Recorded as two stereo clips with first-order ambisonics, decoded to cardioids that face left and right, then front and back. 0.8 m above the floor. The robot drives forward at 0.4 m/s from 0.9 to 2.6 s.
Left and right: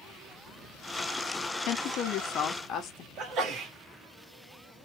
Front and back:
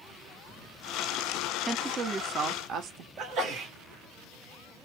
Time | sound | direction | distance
1.7 | a woman speaking | 105° left | 0.7 m
3.2 | a sneeze | 135° right | 1.3 m